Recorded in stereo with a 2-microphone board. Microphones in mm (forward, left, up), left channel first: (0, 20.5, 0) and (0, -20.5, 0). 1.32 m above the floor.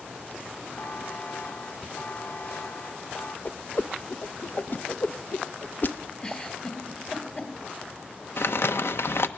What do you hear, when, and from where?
0.8 s a buzzer: 55° left (ahead or behind), 2.5 m
3.5 s a whoosh: 50° left (ahead or behind), 0.8 m
6.2 s a giggle: 25° left (ahead or behind), 3 m
8.4 s crumpling: 75° left (ahead or behind), 1.1 m